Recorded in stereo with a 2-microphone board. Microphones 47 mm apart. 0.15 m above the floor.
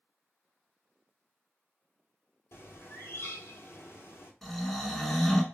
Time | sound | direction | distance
2.5 | a bird | 60° left (ahead or behind) | 0.7 m
4.4 | snoring | 5° left (ahead or behind) | 0.5 m